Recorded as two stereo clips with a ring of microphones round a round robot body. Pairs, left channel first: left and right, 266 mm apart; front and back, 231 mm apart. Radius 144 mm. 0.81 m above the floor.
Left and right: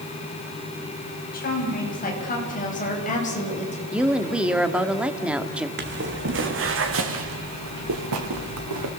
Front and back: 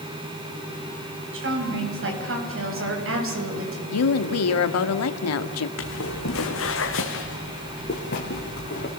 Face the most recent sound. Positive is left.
turn(degrees=-60)